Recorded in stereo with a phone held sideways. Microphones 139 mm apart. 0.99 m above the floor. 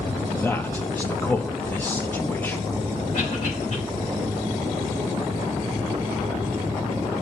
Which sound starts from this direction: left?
A cough, at 3.1 s.